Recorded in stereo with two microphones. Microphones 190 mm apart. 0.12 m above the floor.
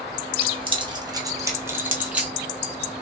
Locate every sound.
0.4 s keys jangling: 30° right (ahead or behind), 1.7 m; by 2.3 s 5° right (ahead or behind), 2 m